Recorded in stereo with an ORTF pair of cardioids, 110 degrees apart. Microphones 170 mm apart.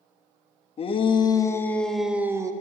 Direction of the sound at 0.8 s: 35° left.